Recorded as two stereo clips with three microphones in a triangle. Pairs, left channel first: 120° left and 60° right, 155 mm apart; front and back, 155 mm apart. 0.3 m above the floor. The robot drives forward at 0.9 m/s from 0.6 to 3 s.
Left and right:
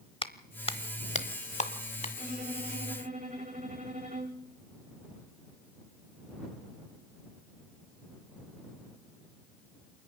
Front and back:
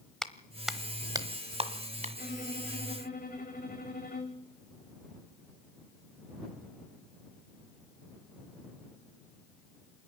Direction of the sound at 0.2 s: 85° left.